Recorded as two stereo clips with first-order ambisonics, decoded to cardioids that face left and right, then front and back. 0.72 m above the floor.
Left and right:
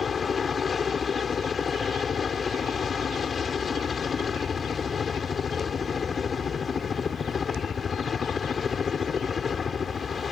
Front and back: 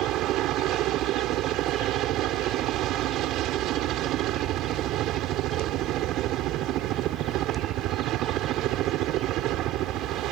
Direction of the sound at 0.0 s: 155° left.